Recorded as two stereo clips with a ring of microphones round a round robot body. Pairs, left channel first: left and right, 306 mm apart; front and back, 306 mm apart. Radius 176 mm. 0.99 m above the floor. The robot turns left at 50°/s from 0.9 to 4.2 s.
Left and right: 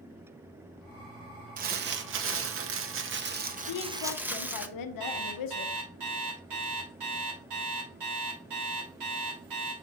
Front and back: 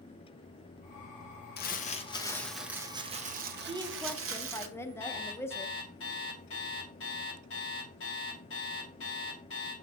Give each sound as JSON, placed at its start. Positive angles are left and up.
{"t": 1.6, "sound": "crumpling", "azimuth_deg": -40, "distance_m": 0.8}
{"t": 3.7, "sound": "a woman speaking", "azimuth_deg": 110, "distance_m": 0.7}
{"t": 5.0, "sound": "an alarm clock", "azimuth_deg": -55, "distance_m": 2.0}